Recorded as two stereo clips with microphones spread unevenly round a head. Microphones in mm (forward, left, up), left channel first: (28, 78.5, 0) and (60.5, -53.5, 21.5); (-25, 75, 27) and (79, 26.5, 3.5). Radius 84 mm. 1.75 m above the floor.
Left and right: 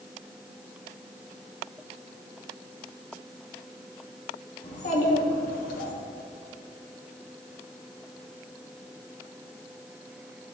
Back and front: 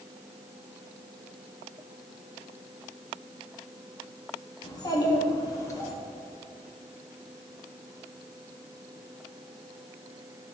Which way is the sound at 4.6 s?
145° left.